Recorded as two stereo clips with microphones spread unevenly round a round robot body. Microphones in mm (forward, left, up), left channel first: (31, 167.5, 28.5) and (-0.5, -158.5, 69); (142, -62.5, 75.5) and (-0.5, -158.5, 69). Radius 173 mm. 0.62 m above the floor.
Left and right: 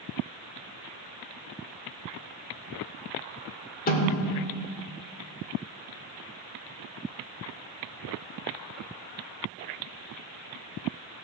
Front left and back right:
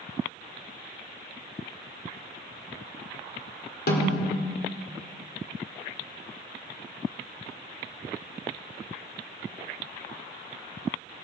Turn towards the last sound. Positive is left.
turn(degrees=25)